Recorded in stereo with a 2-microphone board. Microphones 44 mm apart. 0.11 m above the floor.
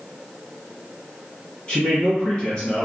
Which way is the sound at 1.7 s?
20° left (ahead or behind).